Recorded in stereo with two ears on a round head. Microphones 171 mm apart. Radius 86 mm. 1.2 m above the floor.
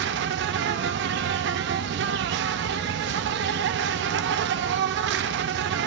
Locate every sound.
0.0 s an insect: 65° right (ahead or behind), 0.7 m